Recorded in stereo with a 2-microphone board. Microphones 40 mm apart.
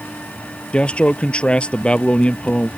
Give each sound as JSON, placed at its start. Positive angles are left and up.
{"t": 0.7, "sound": "a man speaking", "side_deg": 25}